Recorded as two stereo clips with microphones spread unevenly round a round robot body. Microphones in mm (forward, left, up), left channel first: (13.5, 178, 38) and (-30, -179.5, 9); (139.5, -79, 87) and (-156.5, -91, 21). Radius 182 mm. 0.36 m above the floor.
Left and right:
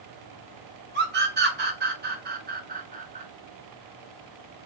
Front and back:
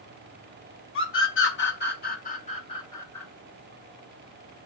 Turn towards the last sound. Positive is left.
turn(degrees=-110)